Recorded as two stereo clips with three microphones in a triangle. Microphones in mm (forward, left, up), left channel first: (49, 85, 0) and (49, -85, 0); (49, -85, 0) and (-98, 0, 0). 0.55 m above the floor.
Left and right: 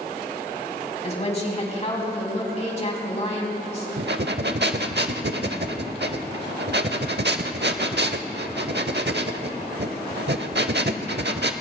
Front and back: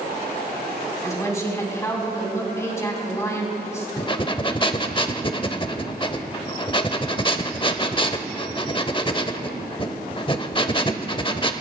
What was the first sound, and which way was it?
A woman speaking, 40° left.